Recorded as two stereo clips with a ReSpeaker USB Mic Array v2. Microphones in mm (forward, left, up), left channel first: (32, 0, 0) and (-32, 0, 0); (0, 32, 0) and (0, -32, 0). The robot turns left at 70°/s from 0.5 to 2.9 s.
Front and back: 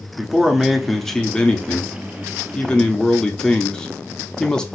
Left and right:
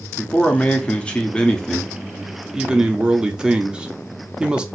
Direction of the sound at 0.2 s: 115° left.